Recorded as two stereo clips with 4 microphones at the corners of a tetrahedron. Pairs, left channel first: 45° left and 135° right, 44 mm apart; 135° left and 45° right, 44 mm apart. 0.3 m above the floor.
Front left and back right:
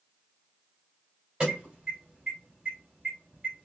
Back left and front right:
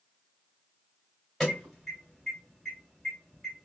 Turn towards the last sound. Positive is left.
turn(degrees=-155)